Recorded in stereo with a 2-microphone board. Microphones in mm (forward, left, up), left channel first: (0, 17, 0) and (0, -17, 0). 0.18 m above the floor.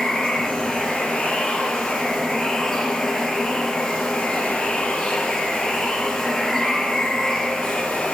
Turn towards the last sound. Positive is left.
turn(degrees=10)  # may be behind; listen again after turning